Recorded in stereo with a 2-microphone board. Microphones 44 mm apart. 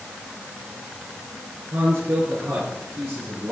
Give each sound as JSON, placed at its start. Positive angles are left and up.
{"t": 1.7, "sound": "a man speaking", "side_deg": -65, "distance_m": 5.0}